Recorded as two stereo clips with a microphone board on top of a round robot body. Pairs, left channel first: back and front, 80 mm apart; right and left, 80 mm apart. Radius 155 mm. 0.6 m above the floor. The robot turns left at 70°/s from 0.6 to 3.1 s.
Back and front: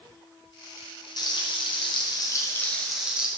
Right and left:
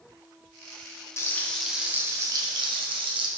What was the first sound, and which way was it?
Frying, 145° right.